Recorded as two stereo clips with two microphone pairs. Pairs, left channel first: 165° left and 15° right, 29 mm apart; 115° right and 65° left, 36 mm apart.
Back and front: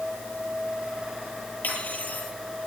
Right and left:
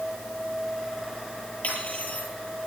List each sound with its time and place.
1.6 s cutlery clinking: 165° right, 9 m